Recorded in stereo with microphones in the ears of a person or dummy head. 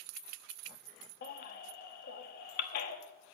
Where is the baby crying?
50° left (ahead or behind), 1.1 m.